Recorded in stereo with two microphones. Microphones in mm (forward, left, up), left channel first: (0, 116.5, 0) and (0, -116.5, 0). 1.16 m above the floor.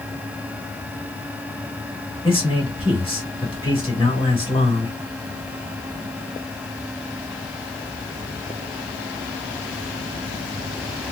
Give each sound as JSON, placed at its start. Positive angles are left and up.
{"t": 2.2, "sound": "a man speaking", "side_deg": 20, "distance_m": 2.0}